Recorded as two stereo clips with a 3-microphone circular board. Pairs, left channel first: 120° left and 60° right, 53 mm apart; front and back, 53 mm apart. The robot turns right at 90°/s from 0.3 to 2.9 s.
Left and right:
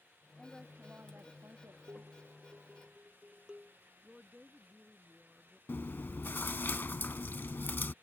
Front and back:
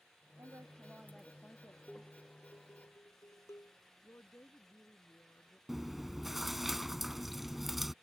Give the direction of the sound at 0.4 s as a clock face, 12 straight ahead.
5 o'clock.